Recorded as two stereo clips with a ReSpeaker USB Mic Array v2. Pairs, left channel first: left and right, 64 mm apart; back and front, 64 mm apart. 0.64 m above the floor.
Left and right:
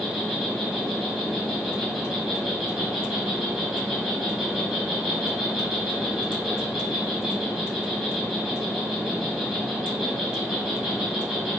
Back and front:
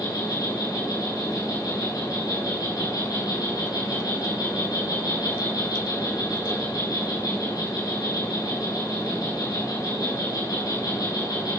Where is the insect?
170° right, 6 m.